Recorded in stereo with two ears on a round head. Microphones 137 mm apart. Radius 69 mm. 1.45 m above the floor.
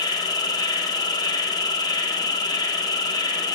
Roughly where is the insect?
Left.